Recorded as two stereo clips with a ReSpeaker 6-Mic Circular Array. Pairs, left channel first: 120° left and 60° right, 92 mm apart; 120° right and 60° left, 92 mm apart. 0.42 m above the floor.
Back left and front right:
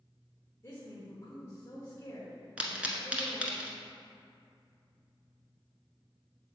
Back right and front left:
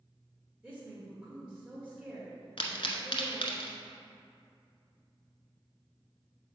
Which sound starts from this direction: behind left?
A woman speaking, at 0.6 s.